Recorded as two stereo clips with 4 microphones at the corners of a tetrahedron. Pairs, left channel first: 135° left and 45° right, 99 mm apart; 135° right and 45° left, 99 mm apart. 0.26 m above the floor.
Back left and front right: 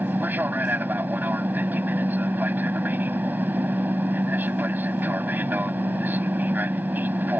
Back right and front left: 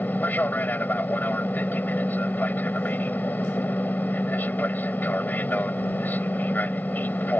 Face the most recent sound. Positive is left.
turn(degrees=-90)